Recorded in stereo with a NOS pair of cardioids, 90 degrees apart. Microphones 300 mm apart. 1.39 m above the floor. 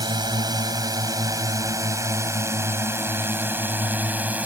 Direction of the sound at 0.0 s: 15° right.